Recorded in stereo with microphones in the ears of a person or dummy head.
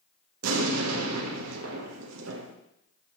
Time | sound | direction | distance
0.4 | an explosion | 85° right | 0.9 m